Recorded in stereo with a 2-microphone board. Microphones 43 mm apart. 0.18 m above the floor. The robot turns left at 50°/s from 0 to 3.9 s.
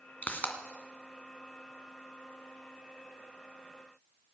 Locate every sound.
0.2 s a pop: 40° left (ahead or behind), 2 m